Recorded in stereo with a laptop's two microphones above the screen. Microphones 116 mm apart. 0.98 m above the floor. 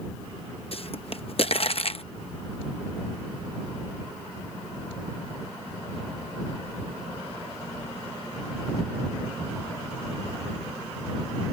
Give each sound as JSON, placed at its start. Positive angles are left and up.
{"t": 0.7, "sound": "a pop", "side_deg": 55}